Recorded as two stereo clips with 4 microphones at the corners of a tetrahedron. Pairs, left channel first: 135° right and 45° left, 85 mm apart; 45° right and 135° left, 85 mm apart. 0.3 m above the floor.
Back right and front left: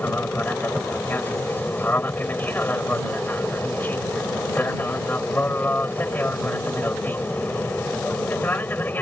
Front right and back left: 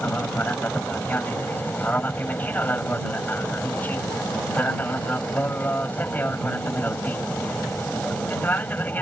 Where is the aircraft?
90° right.